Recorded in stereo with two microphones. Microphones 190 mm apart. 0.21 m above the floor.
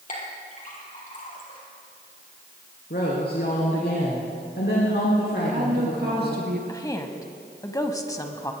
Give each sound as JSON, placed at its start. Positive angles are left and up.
{"t": 0.1, "sound": "a clink", "side_deg": 45, "distance_m": 4.0}
{"t": 2.9, "sound": "a woman speaking", "side_deg": 60, "distance_m": 2.5}
{"t": 5.4, "sound": "a woman speaking", "side_deg": -60, "distance_m": 3.5}
{"t": 6.7, "sound": "a woman speaking", "side_deg": 20, "distance_m": 1.2}